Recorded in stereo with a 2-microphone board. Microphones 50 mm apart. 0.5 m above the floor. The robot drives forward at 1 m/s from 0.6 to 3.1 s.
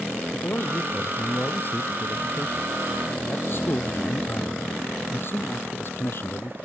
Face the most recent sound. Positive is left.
turn(degrees=50)  # may be behind; listen again after turning